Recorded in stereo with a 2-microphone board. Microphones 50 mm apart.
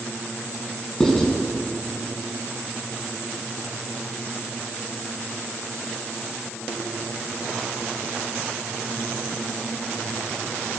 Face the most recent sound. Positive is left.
turn(degrees=10)  # may be behind; listen again after turning